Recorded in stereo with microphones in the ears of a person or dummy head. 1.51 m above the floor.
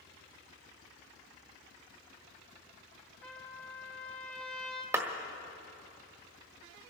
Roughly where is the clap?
Centre.